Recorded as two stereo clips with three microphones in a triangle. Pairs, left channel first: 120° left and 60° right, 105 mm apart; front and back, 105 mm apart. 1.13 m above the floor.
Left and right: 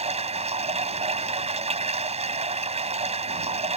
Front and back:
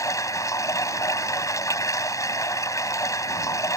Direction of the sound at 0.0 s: 60° right.